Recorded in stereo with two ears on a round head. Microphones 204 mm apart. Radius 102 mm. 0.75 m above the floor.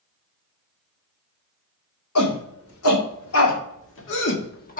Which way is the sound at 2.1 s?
75° left (ahead or behind).